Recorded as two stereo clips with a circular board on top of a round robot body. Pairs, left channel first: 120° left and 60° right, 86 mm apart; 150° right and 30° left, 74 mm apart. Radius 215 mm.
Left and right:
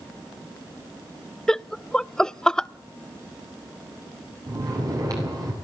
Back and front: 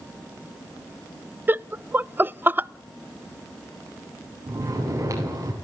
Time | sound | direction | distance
1.5 | laughter | 45° left | 0.6 m
4.5 | snoring | 15° right | 7.5 m